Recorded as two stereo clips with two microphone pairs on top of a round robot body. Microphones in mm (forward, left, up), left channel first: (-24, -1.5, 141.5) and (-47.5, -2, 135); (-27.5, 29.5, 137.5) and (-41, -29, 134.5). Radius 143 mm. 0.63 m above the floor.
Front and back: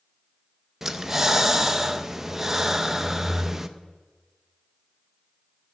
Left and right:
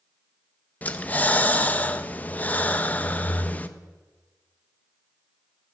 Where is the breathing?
135° left, 0.7 m.